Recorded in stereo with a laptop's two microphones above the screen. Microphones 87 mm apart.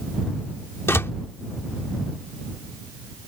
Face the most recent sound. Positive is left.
turn(degrees=30)  # may be behind; listen again after turning